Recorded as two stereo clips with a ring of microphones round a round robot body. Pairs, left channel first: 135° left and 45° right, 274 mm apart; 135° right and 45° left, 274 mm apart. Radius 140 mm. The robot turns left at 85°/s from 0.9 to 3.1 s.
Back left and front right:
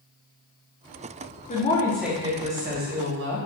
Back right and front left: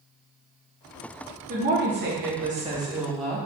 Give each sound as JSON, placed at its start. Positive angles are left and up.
{"t": 1.5, "sound": "a woman speaking", "azimuth_deg": 90, "distance_m": 0.9}